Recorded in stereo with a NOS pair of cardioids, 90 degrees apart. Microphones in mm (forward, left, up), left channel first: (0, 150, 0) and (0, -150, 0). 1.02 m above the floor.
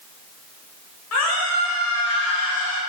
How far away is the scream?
About 4.5 m.